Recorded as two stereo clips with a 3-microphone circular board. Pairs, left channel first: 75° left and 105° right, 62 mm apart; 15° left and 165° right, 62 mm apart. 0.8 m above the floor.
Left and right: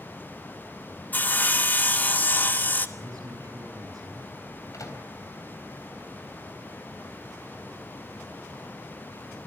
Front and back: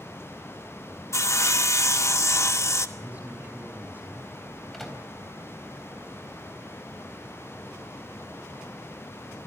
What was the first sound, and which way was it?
Sawing, 25° left.